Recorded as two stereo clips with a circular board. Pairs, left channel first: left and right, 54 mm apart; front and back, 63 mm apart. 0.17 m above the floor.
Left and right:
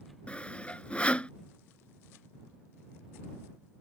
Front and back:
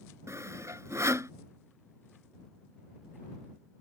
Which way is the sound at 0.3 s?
155° left.